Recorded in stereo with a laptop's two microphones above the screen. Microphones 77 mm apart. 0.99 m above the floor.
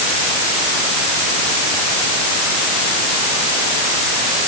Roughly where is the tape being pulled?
No tape being pulled in this recording.